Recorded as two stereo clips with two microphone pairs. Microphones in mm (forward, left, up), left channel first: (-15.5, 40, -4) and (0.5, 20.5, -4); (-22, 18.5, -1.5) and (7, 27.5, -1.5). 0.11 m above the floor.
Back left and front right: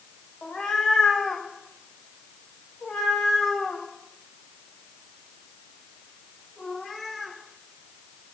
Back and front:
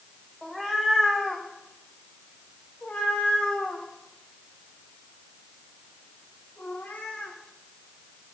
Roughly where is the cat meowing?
Behind left.